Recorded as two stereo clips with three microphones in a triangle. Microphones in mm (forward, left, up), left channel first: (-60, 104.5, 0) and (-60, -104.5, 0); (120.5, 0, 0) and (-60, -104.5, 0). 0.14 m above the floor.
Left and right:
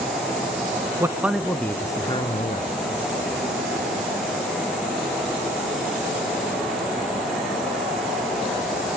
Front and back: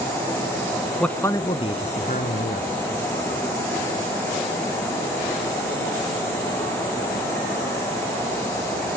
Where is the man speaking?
50° right, 1.1 m; by 2.7 s 45° left, 1.6 m.